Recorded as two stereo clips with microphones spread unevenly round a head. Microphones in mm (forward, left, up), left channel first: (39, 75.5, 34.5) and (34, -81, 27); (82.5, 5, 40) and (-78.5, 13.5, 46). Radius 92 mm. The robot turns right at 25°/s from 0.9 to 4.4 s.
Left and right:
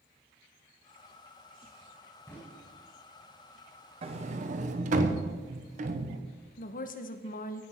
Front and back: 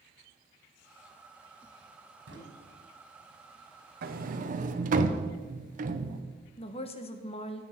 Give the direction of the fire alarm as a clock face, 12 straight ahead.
No fire alarm in this recording.